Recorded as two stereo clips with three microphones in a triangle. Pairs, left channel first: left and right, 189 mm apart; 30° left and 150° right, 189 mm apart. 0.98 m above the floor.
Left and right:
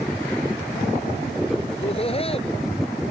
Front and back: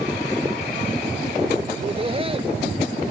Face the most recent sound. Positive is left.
turn(degrees=150)